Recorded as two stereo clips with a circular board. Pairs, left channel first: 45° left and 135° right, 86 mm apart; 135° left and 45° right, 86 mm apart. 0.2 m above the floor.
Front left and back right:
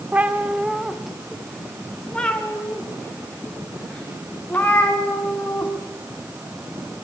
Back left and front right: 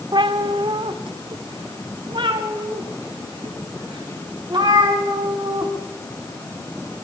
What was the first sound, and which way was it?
A cat meowing, 65° right.